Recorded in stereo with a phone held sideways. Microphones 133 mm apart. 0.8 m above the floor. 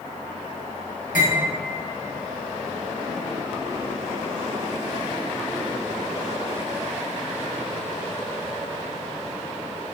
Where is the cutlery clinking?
85° left, 0.9 m.